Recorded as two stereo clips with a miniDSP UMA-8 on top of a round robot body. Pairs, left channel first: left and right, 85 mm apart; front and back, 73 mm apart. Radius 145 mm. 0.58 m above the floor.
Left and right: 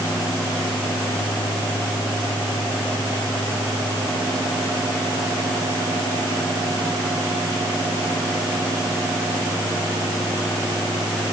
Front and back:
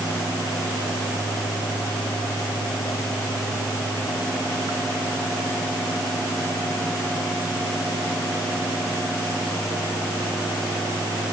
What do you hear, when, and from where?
Only background noise.